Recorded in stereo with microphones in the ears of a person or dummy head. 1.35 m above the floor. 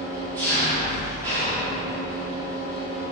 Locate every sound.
0.0 s an engine running: 20° right (ahead or behind), 1.4 m